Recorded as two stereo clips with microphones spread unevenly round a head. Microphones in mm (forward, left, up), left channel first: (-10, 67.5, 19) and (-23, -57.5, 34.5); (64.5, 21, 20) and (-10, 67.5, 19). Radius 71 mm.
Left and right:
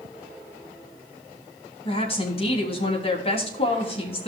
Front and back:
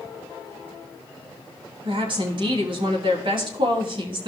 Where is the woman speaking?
130° left, 3 m.